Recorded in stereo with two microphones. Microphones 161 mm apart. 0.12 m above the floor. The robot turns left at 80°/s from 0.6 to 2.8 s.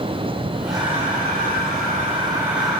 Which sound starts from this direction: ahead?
Breathing, at 0.7 s.